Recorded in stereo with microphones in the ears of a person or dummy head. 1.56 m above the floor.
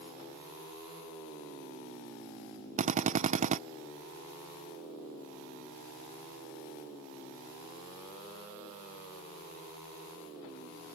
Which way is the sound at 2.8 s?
30° right (ahead or behind).